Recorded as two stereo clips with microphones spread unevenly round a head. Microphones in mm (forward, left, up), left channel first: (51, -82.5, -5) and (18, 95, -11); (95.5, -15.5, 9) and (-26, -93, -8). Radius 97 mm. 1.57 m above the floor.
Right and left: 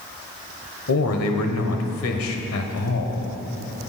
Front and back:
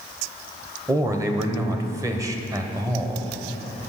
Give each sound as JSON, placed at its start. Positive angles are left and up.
{"t": 0.9, "sound": "a man speaking", "azimuth_deg": -80, "distance_m": 1.0}